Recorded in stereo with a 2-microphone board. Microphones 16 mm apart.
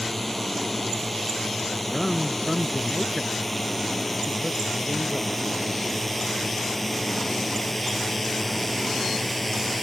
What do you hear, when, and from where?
0.0 s a drone: 5° left (ahead or behind)
1.9 s a man speaking: 15° left (ahead or behind)